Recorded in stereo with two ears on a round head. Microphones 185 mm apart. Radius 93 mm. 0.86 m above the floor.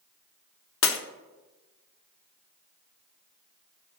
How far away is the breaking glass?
About 1.1 m.